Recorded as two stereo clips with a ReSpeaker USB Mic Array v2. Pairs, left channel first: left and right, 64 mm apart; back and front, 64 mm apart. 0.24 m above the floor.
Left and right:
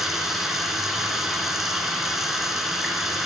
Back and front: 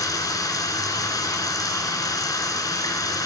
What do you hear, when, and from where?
0.0 s running water: 175° right, 2.5 m